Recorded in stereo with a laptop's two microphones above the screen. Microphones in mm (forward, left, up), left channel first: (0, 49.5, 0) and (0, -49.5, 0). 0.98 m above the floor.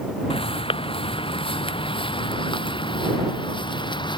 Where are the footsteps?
75° left (ahead or behind); by 4.2 s 55° left (ahead or behind).